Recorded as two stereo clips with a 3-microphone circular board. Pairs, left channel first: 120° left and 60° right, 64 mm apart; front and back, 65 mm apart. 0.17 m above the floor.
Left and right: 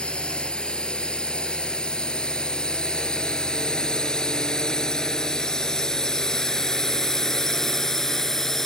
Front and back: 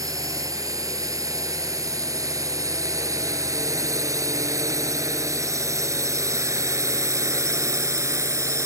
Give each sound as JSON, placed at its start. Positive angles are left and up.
{"t": 0.0, "sound": "a drone", "azimuth_deg": -165}